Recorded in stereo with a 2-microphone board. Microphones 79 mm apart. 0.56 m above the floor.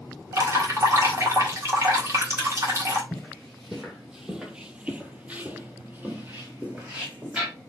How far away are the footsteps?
About 1.1 m.